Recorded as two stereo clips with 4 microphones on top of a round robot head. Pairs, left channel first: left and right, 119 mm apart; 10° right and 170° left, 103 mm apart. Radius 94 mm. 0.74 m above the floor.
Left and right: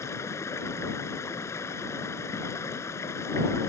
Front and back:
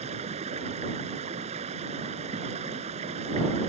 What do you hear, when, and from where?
0.0 s running water: 155° left